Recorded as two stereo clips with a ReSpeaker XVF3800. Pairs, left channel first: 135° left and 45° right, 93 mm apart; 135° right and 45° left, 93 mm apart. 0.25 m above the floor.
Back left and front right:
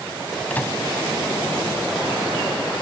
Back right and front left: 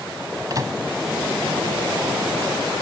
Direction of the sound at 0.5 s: 70° left.